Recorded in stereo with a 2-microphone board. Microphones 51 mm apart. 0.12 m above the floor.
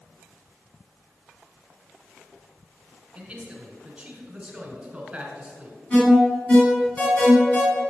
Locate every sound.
3.1 s a man speaking: 20° right (ahead or behind), 1.1 m
5.9 s an alarm: 35° left (ahead or behind), 2.5 m